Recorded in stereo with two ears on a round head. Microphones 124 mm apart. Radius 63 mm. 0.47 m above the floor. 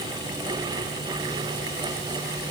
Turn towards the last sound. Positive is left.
No sound to turn to.